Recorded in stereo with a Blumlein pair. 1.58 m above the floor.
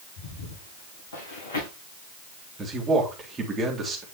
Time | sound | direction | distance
0.2 | footsteps | 65° left | 7 m
2.6 | a man speaking | 15° right | 3.5 m